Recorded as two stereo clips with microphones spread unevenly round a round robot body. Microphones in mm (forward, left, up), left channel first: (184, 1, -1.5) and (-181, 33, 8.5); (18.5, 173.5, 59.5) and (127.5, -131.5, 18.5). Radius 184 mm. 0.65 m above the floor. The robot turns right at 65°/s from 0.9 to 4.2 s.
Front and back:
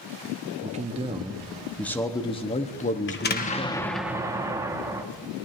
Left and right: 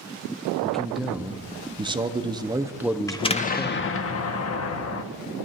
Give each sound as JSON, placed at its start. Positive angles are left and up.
{"t": 0.6, "sound": "a man speaking", "azimuth_deg": -140, "distance_m": 0.9}
{"t": 3.1, "sound": "an explosion", "azimuth_deg": 25, "distance_m": 1.3}